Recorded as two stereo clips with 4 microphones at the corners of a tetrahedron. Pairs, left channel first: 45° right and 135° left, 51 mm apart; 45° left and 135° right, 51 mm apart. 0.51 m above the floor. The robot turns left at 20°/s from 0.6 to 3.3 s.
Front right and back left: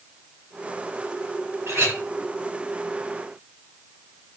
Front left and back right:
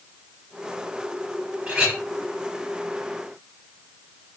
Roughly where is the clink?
Behind left.